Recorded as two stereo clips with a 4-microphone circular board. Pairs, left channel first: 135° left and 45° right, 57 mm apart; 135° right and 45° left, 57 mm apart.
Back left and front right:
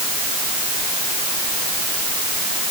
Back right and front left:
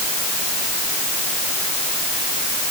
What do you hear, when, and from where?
Only background noise.